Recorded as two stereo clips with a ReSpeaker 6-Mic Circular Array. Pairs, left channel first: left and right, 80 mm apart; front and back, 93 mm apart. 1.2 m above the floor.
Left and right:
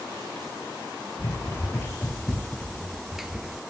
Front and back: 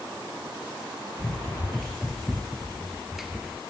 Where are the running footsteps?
80° left, 1.5 m; by 3.6 s 115° right, 1.2 m.